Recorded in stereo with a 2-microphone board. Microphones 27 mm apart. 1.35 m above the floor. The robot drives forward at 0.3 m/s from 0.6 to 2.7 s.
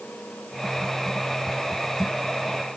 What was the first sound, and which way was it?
Only background noise.